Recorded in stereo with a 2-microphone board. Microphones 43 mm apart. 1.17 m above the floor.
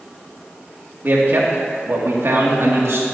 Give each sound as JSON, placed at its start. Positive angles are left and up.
{"t": 1.0, "sound": "a man speaking", "side_deg": -50, "distance_m": 2.5}